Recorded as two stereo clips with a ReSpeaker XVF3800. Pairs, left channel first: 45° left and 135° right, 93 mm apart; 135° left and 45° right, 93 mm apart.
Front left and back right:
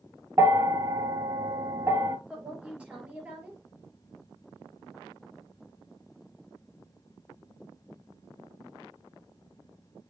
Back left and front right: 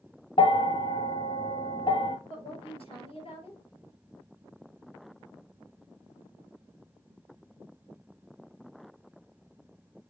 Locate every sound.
0.4 s a bell: 165° left, 0.8 m
2.3 s a woman speaking: 150° left, 5 m